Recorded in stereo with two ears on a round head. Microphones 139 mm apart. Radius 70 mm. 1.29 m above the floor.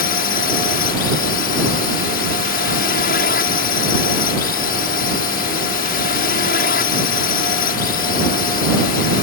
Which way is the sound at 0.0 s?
60° left (ahead or behind).